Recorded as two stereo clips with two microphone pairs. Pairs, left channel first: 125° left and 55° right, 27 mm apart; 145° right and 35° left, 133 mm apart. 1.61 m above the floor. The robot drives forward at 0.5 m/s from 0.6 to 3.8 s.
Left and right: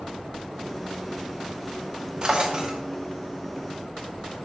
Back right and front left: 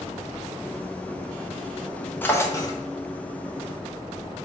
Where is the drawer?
75° right, 0.9 m; by 2.8 s 110° right, 0.9 m.